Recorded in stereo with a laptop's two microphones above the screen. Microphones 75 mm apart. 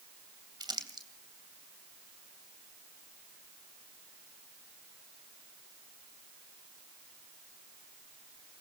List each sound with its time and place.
0.6 s crumpling: 80° right, 2.5 m